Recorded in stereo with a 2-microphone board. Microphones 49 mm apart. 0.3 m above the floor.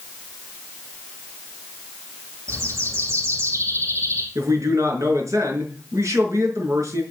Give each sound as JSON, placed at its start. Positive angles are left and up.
{"t": 2.5, "sound": "a bird", "side_deg": -60, "distance_m": 4.5}
{"t": 4.3, "sound": "a man speaking", "side_deg": -70, "distance_m": 5.0}